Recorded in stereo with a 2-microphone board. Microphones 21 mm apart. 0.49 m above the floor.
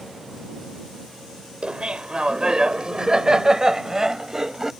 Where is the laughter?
55° right (ahead or behind); by 4.7 s 25° right (ahead or behind).